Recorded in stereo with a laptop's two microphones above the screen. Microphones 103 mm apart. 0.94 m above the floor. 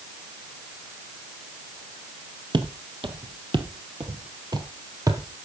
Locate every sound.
2.5 s footsteps: 50° right (ahead or behind), 1.6 m; by 5.3 s 30° right (ahead or behind), 1.5 m